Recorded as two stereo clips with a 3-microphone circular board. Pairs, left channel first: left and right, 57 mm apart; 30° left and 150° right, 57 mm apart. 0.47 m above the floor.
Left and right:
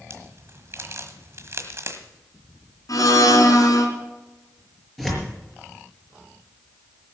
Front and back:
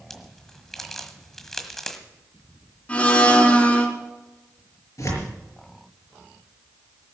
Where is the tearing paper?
5° left, 5.5 m.